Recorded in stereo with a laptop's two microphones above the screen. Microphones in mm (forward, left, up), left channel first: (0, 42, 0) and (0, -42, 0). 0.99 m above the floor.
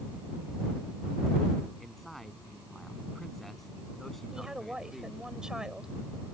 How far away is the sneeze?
I don't hear a sneeze.